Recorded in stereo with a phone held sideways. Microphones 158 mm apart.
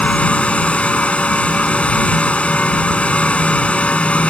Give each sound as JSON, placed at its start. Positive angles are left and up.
{"t": 0.0, "sound": "a fan", "side_deg": 5}